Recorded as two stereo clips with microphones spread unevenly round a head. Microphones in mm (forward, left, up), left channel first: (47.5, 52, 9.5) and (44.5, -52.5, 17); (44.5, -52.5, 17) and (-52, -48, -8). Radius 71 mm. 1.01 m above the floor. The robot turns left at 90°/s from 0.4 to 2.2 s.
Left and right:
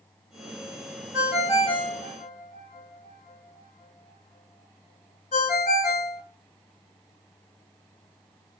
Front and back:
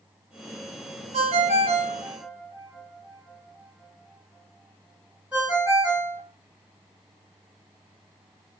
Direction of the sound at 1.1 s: 170° right.